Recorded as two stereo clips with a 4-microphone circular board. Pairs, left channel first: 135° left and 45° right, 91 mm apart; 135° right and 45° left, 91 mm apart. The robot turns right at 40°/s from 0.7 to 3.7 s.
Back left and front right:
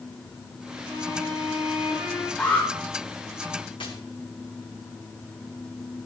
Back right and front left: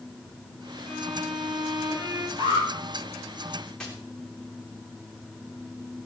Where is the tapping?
140° left, 3 m.